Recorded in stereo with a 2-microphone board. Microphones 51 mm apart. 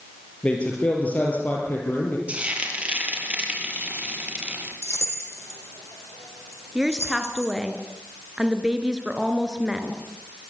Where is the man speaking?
25° left (ahead or behind), 5.5 m; by 2.2 s 45° left (ahead or behind), 6 m.